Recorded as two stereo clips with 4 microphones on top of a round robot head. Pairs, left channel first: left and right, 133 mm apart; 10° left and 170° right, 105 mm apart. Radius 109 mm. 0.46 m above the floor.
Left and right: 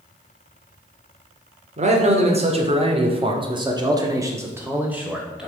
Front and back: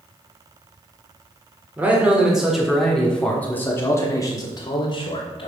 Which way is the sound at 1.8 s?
95° right.